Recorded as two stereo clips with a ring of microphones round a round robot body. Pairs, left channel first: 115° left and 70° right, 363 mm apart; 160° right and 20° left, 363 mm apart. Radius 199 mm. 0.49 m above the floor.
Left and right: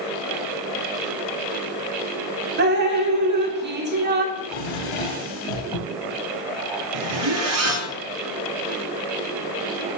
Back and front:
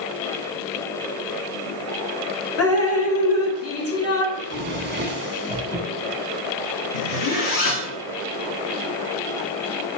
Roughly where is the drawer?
Left.